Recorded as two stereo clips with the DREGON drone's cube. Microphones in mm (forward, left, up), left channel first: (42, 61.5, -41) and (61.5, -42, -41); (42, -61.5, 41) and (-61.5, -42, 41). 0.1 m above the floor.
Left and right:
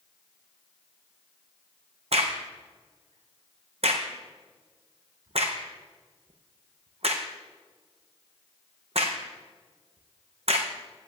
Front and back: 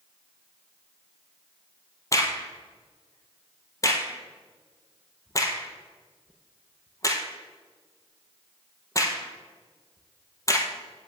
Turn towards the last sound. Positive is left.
turn(degrees=-70)